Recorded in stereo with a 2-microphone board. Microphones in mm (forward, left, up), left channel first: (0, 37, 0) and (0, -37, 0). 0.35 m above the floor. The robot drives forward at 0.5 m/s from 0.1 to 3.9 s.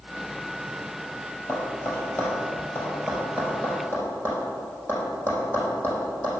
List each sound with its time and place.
1.5 s tapping: 40° left (ahead or behind), 3.5 m; by 6.4 s 30° left (ahead or behind), 5 m